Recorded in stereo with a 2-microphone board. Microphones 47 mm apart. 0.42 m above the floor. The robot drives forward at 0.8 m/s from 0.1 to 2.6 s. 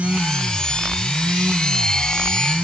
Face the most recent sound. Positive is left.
No sound to turn to.